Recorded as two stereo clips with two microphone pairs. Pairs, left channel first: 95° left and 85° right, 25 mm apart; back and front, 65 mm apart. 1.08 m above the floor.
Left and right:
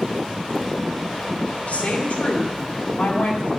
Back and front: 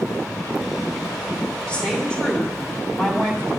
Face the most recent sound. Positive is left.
turn(degrees=105)